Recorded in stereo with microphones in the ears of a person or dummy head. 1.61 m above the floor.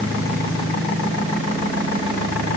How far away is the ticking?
I don't hear ticking.